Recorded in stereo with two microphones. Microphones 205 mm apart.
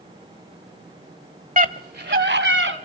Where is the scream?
40° right (ahead or behind), 1.2 m; by 2.8 s 70° right (ahead or behind), 2.5 m.